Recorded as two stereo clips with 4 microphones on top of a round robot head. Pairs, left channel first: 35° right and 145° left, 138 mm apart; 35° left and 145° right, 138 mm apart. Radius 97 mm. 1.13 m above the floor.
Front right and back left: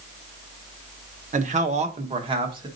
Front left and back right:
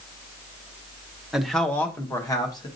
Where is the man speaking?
125° left, 0.9 m; by 2.7 s 90° left, 1.5 m.